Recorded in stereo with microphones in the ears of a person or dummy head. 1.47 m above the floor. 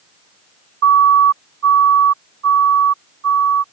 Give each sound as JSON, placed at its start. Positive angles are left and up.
{"t": 0.8, "sound": "a siren", "side_deg": -75}